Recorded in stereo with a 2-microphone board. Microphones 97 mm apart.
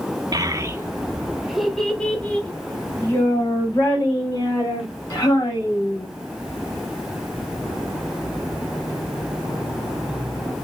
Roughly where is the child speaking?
Right.